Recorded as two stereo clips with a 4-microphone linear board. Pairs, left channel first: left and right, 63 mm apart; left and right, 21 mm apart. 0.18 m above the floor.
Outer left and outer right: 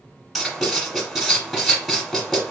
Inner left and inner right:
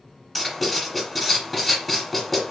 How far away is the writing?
About 1.6 m.